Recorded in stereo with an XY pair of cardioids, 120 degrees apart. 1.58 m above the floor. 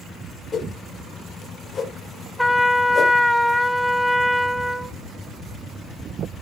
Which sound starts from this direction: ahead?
A trumpet, at 2.4 s.